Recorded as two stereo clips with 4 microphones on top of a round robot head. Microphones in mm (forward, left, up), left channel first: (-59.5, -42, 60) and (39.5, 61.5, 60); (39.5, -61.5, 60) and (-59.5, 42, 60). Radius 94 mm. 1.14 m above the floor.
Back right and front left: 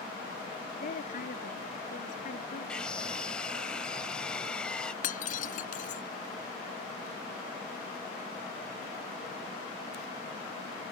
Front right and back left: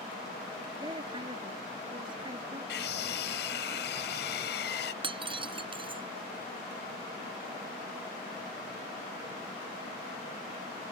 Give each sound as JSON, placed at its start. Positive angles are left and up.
{"t": 0.8, "sound": "a woman speaking", "azimuth_deg": -165}
{"t": 2.7, "sound": "a scream", "azimuth_deg": -50}
{"t": 5.0, "sound": "breaking glass", "azimuth_deg": -170}